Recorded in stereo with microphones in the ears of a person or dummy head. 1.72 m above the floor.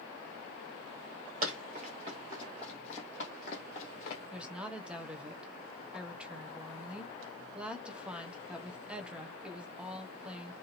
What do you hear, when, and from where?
1.4 s running footsteps: 30° right (ahead or behind), 1.9 m; by 4.2 s 35° left (ahead or behind), 2 m
4.3 s a woman speaking: 10° right (ahead or behind), 1.1 m